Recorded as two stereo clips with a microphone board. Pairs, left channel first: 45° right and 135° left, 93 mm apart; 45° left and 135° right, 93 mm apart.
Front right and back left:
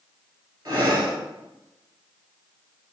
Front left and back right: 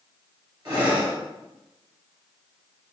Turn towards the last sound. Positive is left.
turn(degrees=180)